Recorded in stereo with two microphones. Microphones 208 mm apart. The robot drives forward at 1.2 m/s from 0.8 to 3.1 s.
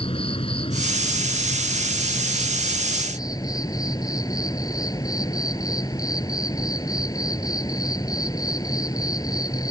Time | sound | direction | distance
0.0 | an insect | 25° left (ahead or behind) | ?